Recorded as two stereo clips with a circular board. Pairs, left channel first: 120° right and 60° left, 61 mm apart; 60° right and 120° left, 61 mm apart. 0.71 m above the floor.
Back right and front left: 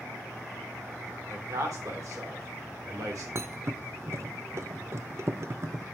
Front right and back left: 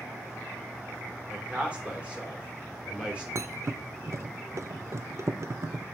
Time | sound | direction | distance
1.3 | a man speaking | 50° left | 2.5 m
3.4 | a thud | 90° left | 0.5 m